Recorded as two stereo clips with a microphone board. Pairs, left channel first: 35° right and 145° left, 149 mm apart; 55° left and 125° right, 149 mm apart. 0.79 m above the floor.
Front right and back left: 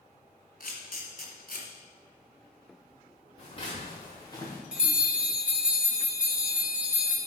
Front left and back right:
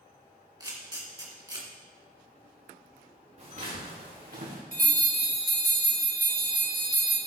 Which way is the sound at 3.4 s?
85° right.